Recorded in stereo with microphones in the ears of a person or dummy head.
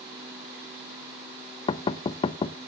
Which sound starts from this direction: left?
Knocking, at 1.7 s.